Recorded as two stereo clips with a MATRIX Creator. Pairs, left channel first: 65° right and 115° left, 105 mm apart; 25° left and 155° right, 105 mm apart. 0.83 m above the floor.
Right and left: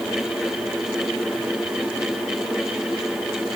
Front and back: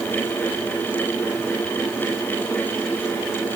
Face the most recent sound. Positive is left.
No sound to turn to.